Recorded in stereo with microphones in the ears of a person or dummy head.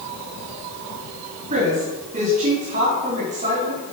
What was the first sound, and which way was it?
A woman speaking, 40° right (ahead or behind).